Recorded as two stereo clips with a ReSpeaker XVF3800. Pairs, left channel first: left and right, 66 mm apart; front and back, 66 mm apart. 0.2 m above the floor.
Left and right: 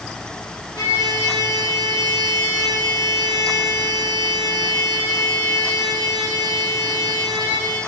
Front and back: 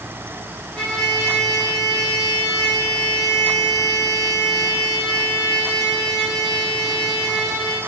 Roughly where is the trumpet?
Left.